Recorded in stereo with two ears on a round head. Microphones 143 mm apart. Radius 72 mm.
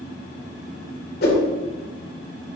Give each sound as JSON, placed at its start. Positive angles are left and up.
{"t": 1.2, "sound": "a whoosh", "side_deg": 60, "distance_m": 2.0}